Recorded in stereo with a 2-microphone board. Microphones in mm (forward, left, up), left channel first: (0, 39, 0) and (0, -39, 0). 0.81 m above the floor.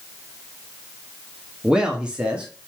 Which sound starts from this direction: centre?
A man speaking, at 1.6 s.